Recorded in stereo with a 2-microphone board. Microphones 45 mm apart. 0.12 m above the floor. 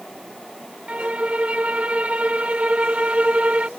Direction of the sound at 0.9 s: 25° right (ahead or behind).